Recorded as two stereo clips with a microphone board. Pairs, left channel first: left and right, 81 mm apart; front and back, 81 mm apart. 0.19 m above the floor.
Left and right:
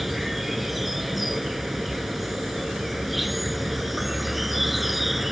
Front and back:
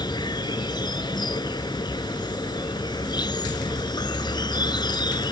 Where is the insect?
Straight ahead.